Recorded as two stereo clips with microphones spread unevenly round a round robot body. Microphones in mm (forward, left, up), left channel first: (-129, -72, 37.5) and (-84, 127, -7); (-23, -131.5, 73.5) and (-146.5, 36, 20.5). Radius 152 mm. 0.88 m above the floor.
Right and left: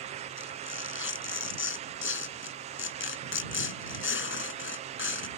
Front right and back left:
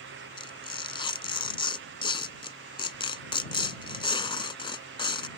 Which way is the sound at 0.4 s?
120° right.